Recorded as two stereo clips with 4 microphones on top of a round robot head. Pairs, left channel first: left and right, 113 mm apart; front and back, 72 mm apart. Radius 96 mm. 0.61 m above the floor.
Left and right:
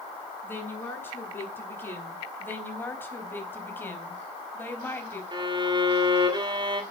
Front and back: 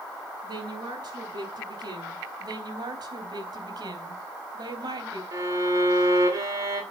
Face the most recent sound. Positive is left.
turn(degrees=-140)